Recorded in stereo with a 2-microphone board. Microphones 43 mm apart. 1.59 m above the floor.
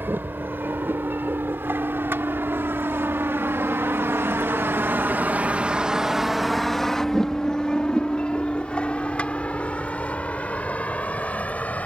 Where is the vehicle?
60° right (ahead or behind); by 11.9 s 35° left (ahead or behind).